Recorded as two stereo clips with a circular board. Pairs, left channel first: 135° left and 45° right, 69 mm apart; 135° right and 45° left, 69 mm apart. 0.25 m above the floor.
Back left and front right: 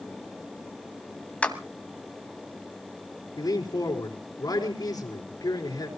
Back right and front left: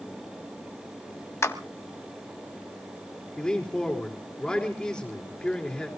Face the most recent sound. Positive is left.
turn(degrees=150)